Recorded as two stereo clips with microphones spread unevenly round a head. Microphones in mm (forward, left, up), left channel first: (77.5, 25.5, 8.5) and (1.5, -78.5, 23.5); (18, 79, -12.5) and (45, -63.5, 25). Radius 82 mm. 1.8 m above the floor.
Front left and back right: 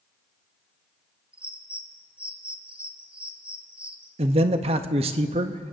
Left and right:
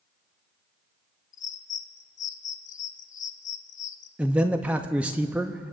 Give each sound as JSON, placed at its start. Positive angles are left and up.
{"t": 1.3, "sound": "a bird", "azimuth_deg": 150, "distance_m": 0.6}
{"t": 4.2, "sound": "a man speaking", "azimuth_deg": -145, "distance_m": 0.6}